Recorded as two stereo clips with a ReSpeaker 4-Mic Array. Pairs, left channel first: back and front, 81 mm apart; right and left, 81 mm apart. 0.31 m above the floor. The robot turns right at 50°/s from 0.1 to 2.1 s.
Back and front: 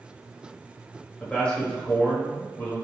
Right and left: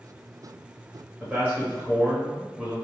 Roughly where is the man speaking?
Left.